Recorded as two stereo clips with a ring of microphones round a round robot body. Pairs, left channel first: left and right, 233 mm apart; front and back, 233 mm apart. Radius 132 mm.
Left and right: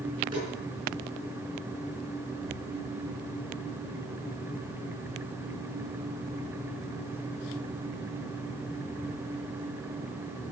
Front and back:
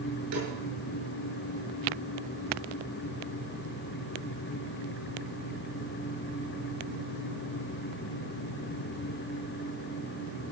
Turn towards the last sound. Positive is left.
turn(degrees=-165)